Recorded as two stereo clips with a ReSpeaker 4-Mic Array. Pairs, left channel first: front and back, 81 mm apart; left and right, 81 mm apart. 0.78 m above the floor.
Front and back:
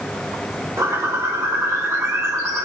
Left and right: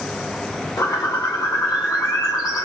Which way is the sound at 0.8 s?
130° left.